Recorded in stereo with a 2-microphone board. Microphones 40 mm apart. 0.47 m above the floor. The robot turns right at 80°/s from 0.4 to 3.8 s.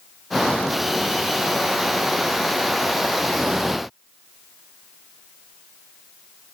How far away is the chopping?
No chopping in this recording.